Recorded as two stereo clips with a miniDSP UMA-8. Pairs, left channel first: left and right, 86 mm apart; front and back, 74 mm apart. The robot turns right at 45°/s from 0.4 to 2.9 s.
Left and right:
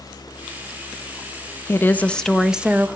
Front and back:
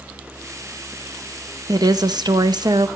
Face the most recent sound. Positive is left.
turn(degrees=-155)